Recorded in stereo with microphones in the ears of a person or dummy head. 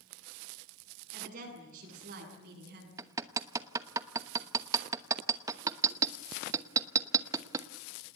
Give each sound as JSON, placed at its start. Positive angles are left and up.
{"t": 1.1, "sound": "a woman speaking", "side_deg": -45, "distance_m": 10.0}
{"t": 3.0, "sound": "hammering", "side_deg": -20, "distance_m": 0.9}